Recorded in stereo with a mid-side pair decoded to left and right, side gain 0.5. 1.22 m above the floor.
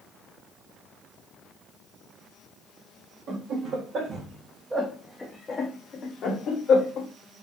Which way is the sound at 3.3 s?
70° right.